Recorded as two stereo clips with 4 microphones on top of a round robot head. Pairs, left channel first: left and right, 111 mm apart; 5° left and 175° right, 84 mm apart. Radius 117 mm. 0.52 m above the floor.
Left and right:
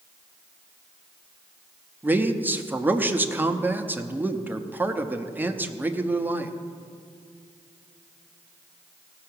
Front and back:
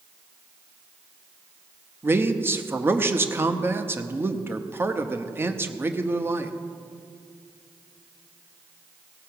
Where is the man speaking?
145° right, 0.8 m.